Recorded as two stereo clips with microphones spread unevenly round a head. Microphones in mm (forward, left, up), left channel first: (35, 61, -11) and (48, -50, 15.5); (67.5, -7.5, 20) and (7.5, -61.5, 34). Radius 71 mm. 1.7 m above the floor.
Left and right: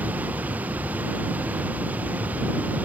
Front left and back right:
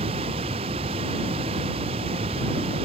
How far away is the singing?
I don't hear singing.